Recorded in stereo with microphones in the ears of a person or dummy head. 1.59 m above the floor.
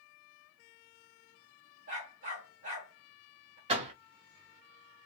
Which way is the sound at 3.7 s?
30° right (ahead or behind).